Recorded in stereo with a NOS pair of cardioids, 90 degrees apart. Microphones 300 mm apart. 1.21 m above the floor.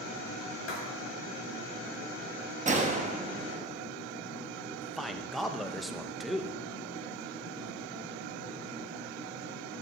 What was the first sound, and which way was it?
Writing, 50° left.